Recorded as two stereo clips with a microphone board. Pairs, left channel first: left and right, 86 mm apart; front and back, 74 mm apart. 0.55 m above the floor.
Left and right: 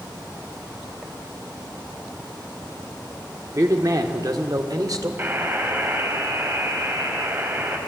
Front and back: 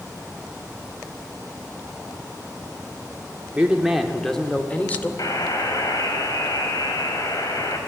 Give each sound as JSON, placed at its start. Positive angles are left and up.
{"t": 3.5, "sound": "a man speaking", "azimuth_deg": -115, "distance_m": 1.4}
{"t": 5.2, "sound": "a buzzer", "azimuth_deg": -30, "distance_m": 3.0}